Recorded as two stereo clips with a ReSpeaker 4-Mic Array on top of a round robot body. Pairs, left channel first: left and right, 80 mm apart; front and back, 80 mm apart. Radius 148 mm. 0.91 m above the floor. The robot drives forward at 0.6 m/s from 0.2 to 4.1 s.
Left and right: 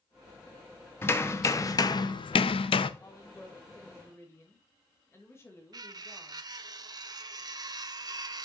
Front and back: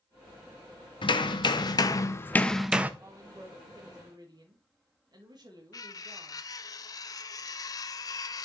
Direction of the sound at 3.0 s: 135° left.